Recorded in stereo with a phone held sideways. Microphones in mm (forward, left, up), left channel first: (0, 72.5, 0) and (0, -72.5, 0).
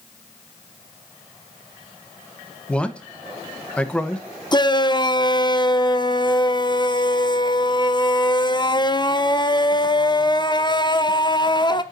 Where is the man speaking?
5° left (ahead or behind), 0.9 m.